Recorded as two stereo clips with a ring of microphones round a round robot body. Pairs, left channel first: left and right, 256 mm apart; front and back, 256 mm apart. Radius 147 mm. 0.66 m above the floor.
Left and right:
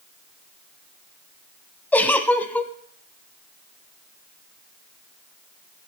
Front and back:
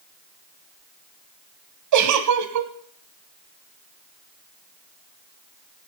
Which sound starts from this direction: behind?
A giggle, at 1.9 s.